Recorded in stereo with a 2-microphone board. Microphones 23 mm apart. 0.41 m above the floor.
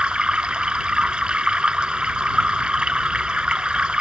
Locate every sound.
0.0 s running water: 45° right (ahead or behind)